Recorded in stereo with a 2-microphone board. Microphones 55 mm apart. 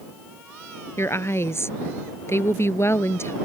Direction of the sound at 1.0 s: 55° left (ahead or behind).